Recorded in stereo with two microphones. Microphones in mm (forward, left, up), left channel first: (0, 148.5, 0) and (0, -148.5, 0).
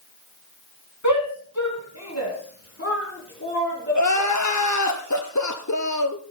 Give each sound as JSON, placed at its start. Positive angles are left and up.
{"t": 1.0, "sound": "a shout", "side_deg": 65, "distance_m": 3.0}
{"t": 4.0, "sound": "crying", "side_deg": 65, "distance_m": 1.4}